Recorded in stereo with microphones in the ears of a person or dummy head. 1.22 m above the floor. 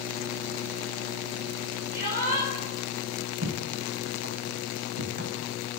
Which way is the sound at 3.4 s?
60° right (ahead or behind).